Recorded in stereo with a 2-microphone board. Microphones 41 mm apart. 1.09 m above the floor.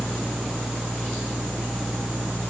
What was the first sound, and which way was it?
Only background noise.